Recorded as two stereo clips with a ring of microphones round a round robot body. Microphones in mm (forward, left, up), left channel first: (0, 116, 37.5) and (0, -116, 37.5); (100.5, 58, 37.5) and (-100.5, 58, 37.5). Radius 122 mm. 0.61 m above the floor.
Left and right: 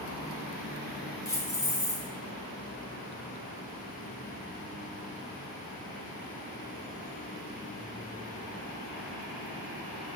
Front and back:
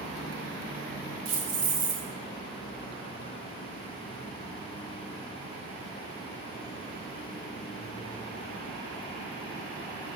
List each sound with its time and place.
1.2 s keys jangling: 165° left, 1.4 m